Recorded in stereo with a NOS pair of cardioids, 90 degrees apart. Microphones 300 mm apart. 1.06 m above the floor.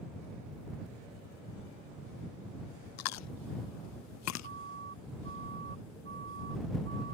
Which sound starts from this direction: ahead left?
Chewing, at 3.0 s.